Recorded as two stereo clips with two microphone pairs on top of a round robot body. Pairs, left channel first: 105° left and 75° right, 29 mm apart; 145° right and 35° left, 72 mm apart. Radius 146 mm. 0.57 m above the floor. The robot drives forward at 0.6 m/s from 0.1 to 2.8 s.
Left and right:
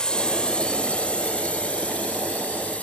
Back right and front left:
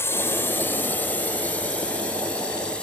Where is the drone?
160° left; by 2.8 s 140° left.